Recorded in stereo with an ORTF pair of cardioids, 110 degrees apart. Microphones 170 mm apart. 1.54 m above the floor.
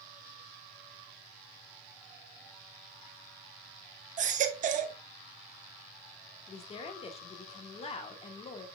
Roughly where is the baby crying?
Ahead right.